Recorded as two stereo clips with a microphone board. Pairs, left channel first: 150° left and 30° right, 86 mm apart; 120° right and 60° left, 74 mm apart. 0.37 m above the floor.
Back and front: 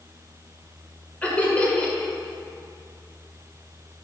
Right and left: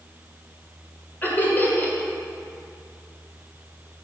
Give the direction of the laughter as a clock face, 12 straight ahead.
5 o'clock.